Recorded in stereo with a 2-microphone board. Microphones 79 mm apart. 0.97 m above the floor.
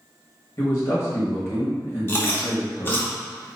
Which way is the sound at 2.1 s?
25° left (ahead or behind).